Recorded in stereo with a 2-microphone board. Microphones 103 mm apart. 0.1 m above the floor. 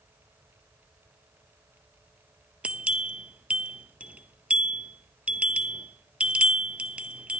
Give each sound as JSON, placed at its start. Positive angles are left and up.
{"t": 2.6, "sound": "a bell", "side_deg": -10, "distance_m": 0.5}